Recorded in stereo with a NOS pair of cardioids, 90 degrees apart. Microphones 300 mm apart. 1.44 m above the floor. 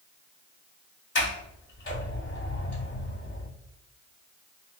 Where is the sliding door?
40° left, 1.9 m.